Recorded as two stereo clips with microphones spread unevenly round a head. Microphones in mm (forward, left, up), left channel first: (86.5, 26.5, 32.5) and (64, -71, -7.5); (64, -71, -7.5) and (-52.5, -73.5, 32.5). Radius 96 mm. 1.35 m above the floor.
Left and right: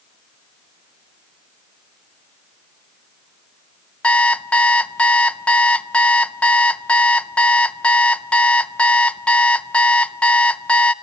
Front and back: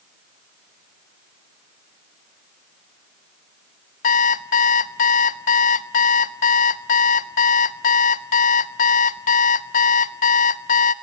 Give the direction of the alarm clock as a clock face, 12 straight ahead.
11 o'clock.